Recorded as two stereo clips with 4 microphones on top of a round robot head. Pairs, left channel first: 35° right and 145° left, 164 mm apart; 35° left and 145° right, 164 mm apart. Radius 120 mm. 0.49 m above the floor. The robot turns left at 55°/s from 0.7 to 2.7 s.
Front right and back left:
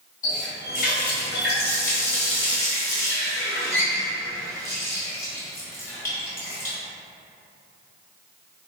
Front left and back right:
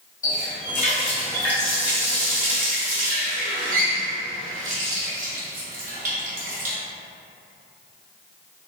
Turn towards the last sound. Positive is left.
turn(degrees=-110)